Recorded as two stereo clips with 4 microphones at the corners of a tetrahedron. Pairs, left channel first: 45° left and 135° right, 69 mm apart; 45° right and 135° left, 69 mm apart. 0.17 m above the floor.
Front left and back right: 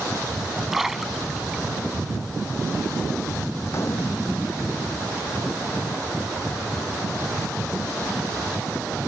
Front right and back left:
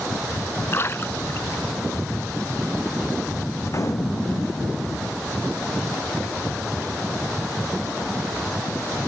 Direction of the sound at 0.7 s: 50° right.